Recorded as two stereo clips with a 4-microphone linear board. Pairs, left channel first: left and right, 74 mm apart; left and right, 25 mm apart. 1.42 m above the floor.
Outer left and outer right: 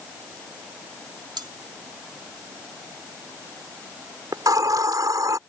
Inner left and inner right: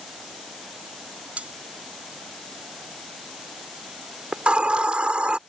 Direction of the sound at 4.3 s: 55° right (ahead or behind).